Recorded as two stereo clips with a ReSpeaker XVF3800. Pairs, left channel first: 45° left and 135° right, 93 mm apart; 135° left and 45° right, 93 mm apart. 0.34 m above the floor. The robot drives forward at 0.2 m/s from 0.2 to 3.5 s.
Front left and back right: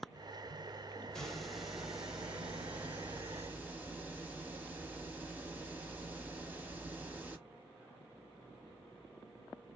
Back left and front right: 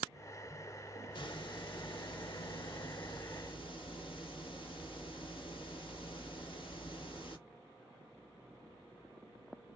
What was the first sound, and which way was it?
A hiss, 130° left.